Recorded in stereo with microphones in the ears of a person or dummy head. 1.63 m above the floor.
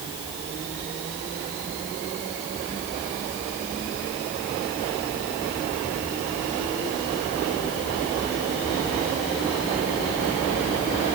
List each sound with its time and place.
Only background noise.